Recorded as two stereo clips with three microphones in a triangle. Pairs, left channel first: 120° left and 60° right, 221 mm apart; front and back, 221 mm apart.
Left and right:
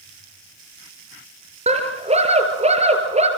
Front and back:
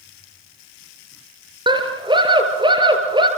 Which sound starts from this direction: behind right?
A scream, at 1.7 s.